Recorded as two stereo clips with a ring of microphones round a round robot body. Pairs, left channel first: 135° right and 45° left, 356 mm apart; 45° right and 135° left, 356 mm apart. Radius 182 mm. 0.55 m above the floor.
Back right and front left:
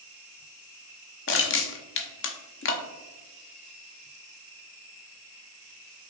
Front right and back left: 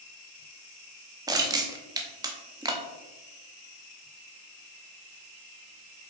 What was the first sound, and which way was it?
Crushing, 155° right.